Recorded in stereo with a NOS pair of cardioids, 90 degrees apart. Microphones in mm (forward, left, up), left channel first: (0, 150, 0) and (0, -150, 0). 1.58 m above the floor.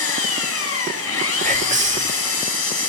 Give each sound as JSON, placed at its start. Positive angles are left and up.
{"t": 0.0, "sound": "an engine running", "azimuth_deg": 50, "distance_m": 5.5}
{"t": 1.4, "sound": "whispering", "azimuth_deg": -25, "distance_m": 3.5}